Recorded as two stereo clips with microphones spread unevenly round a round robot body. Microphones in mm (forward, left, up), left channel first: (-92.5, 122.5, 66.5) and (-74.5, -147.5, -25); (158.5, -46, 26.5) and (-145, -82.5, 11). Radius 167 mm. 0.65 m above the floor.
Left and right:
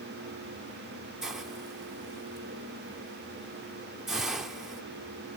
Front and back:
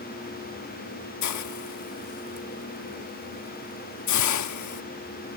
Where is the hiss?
10° right.